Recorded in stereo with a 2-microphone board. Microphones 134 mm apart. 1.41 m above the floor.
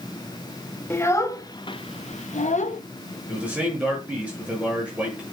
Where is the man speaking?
10° right (ahead or behind), 7.5 m.